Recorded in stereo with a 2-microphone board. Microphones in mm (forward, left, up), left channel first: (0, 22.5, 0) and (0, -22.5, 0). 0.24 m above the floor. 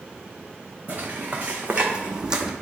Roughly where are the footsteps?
Right.